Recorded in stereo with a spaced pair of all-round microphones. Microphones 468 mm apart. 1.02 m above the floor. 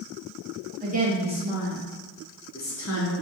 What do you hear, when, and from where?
0.8 s a woman speaking: 20° right (ahead or behind), 1.9 m; by 3.1 s 40° left (ahead or behind), 0.9 m